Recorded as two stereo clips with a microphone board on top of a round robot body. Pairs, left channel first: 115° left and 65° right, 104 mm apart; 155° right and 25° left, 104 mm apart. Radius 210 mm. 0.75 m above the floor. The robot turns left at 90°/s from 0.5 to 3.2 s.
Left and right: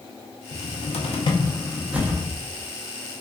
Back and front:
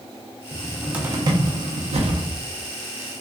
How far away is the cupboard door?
About 0.6 m.